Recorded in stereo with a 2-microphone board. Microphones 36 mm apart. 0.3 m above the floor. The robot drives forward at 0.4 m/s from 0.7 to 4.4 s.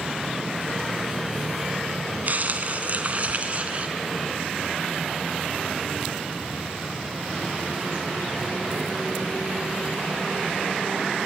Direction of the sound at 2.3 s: 50° right (ahead or behind).